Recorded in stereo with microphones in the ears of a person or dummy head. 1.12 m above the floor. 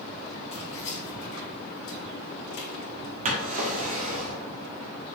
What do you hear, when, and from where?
0.5 s keys jangling: 35° left (ahead or behind), 1.9 m; by 3.1 s 70° left (ahead or behind), 2 m
3.2 s a drawer: 45° right (ahead or behind), 1.2 m